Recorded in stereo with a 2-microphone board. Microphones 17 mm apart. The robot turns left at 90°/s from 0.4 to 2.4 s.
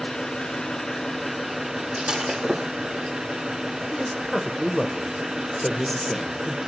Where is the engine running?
90° left, 2.5 m; by 6.7 s 90° right, 2.5 m.